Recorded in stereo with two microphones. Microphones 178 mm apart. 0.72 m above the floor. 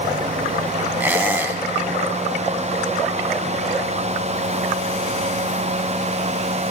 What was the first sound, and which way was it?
A squeak, 10° right (ahead or behind).